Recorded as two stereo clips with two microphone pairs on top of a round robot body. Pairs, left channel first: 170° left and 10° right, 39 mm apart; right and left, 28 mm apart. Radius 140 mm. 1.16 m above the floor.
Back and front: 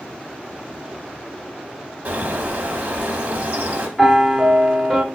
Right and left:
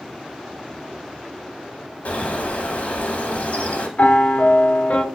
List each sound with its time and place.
2.0 s a bird: 65° right, 1.6 m
4.0 s a piano: 95° right, 1.1 m